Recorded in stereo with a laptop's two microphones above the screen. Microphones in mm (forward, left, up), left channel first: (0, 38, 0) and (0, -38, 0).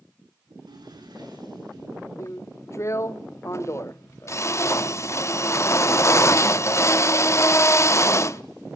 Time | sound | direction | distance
0.5 | a drawer | 65° right (ahead or behind) | 9 m
2.2 | a drill | 40° left (ahead or behind) | 0.8 m